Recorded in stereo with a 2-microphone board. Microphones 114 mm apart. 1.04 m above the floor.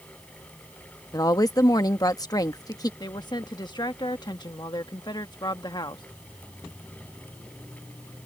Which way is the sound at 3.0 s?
40° left (ahead or behind).